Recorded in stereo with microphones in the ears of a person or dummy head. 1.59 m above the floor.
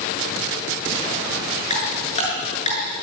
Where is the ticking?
40° left (ahead or behind), 8.5 m.